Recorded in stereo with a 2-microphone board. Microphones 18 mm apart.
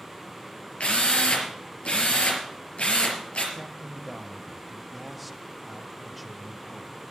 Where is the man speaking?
Centre (ahead or behind), 1.2 m.